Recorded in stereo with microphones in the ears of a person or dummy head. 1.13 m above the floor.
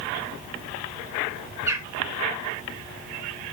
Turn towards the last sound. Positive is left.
turn(degrees=-15)  # may be behind; listen again after turning